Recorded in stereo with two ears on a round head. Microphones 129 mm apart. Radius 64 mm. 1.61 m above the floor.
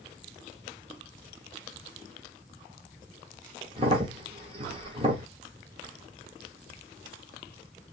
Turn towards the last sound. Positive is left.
turn(degrees=-40)  # may be behind; listen again after turning